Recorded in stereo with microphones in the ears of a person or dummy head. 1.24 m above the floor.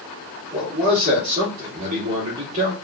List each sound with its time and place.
0.5 s a man speaking: 45° right (ahead or behind), 2.5 m